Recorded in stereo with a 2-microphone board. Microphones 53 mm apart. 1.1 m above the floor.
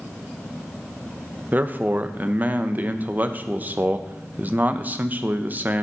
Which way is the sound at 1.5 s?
30° right (ahead or behind).